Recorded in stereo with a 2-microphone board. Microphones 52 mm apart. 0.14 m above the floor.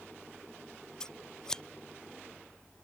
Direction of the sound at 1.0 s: 15° left (ahead or behind).